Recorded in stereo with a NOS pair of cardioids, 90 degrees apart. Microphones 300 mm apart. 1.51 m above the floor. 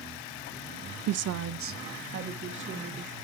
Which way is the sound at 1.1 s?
60° right.